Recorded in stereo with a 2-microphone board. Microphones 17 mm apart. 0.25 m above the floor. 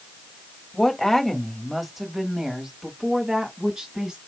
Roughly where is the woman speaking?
Centre.